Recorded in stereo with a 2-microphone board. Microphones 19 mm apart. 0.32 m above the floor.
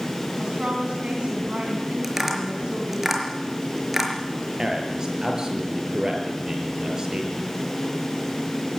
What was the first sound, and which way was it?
A woman speaking, 65° right (ahead or behind).